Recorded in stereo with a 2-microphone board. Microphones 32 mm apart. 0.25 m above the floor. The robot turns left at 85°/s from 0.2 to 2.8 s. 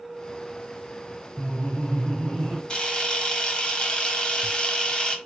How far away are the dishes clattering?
I don't hear dishes clattering.